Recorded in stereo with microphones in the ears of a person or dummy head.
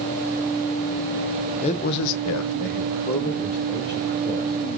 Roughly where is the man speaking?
Left.